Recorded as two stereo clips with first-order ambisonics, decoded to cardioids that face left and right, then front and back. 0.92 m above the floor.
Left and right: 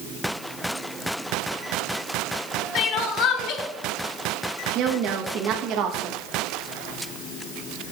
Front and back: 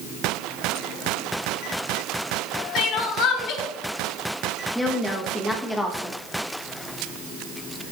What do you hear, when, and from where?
2.8 s crying: 45° left, 1.2 m
4.8 s a woman speaking: 80° right, 1.1 m